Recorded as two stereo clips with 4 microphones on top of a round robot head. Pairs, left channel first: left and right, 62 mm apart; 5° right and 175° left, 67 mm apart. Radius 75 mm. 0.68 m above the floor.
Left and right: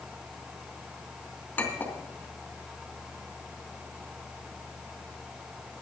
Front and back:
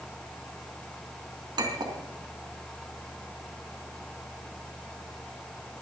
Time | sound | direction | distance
1.6 | a clink | 155° left | 3.5 m